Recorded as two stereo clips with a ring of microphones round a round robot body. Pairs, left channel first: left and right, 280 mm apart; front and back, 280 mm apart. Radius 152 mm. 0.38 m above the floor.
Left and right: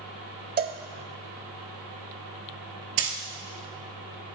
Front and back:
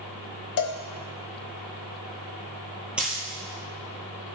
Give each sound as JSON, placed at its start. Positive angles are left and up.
{"t": 0.6, "sound": "a cowbell", "azimuth_deg": -30, "distance_m": 0.6}
{"t": 3.0, "sound": "a dropped coin", "azimuth_deg": -95, "distance_m": 0.9}